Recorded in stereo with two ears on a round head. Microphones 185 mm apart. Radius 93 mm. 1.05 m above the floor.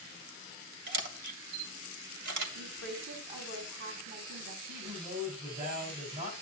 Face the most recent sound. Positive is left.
turn(degrees=-45)  # may be behind; listen again after turning